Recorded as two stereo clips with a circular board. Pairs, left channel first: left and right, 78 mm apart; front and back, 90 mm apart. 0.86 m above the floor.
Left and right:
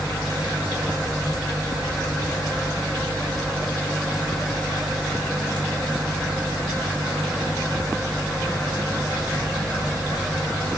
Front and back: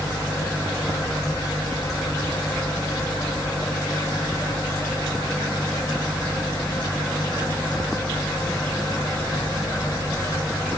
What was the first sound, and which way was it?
Only background noise.